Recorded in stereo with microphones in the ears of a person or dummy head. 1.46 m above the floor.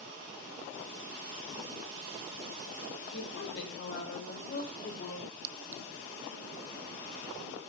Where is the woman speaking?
65° left (ahead or behind), 6 m; by 5.3 s 45° left (ahead or behind), 6.5 m.